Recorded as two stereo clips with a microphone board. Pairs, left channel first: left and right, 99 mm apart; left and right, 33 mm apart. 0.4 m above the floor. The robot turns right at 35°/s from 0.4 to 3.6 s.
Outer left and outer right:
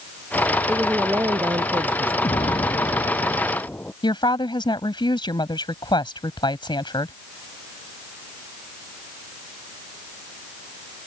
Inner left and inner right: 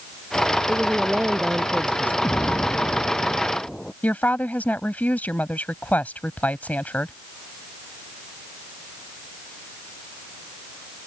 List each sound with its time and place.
0.7 s a woman speaking: 165° right; by 2.1 s 110° right
2.2 s an explosion: 120° left; by 3.9 s 165° left
4.0 s a woman speaking: 50° left (ahead or behind)